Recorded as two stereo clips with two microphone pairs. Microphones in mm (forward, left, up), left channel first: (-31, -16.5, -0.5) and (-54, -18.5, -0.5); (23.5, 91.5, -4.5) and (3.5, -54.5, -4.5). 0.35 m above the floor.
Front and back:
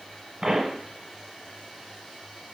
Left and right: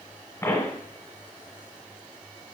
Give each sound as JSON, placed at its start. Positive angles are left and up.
{"t": 0.4, "sound": "a pop", "azimuth_deg": 145, "distance_m": 1.0}